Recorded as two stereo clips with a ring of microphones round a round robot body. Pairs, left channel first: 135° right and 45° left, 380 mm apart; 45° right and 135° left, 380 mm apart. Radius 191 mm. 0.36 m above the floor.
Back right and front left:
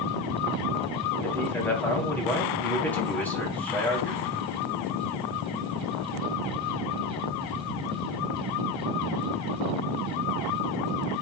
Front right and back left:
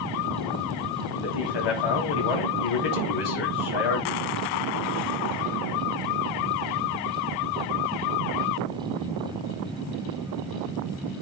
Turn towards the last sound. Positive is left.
turn(degrees=-50)